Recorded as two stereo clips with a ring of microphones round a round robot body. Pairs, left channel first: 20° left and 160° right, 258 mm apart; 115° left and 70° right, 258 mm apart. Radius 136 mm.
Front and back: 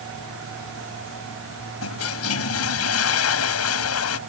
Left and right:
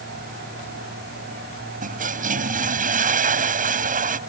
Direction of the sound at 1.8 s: 10° right.